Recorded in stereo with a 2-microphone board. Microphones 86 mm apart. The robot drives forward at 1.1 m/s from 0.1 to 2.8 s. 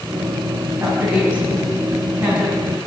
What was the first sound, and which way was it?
A woman speaking, 30° right (ahead or behind).